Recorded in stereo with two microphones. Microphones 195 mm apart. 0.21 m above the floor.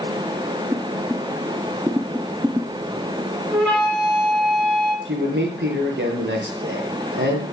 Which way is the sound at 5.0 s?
65° right (ahead or behind).